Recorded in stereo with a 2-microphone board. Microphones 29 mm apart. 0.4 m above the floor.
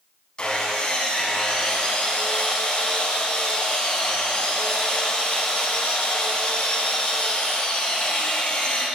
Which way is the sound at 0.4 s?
30° left (ahead or behind).